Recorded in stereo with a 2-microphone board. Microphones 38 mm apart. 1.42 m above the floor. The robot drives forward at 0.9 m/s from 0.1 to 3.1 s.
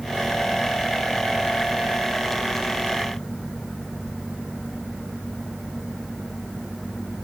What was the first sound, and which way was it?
Only background noise.